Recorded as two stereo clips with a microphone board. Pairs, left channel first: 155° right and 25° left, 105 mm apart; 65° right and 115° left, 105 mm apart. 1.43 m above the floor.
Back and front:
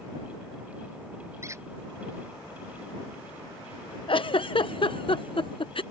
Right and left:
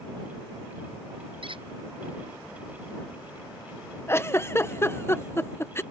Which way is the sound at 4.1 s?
130° right.